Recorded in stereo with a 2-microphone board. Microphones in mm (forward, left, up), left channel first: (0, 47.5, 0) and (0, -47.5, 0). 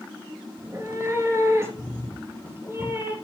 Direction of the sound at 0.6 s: 30° right (ahead or behind).